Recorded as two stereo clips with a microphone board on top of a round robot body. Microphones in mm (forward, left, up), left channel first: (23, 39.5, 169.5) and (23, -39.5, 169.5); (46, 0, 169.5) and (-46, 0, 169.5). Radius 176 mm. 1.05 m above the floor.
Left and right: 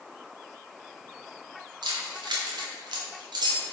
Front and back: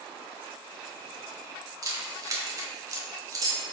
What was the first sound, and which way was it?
Keys jangling, 125° right.